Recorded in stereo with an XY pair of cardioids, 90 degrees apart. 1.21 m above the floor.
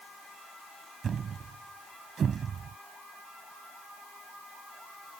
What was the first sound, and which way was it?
A thud, 55° right.